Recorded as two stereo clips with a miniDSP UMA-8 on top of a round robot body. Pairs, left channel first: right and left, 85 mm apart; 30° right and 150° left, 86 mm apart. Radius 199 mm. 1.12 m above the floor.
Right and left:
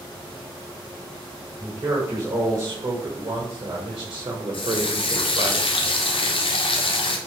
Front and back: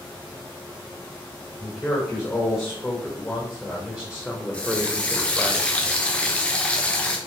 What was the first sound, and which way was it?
A man speaking, 35° left.